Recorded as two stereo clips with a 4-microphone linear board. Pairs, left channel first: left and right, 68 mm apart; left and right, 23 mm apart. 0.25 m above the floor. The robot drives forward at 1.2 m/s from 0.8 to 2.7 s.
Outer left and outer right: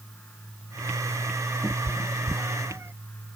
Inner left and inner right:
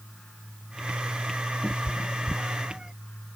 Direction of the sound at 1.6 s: 25° right (ahead or behind).